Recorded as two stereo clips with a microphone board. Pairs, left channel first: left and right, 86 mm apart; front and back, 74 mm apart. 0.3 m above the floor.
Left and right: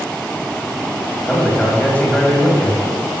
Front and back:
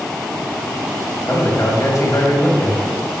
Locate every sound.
1.3 s a man speaking: 30° left, 2 m